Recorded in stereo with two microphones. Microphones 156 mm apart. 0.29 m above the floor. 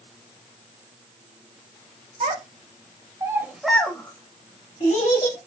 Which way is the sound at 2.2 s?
55° right (ahead or behind).